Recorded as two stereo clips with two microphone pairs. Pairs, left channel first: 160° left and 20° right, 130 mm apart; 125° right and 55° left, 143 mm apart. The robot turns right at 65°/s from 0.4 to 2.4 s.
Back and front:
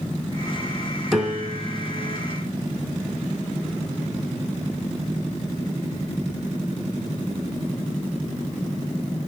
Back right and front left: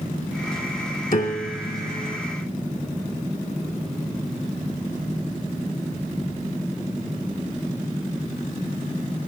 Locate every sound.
1.1 s a piano: 110° right, 3 m; by 2.2 s 40° right, 3 m